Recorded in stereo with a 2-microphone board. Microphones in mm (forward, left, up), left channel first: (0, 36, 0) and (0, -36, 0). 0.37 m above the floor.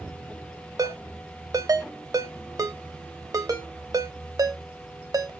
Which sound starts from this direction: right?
A ringtone, at 0.8 s.